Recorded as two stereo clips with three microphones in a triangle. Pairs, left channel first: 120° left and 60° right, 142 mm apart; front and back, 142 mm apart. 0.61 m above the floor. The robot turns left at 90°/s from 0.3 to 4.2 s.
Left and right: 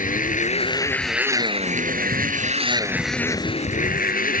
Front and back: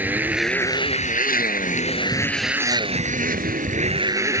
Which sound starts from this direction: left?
A motorcycle, at 0.0 s.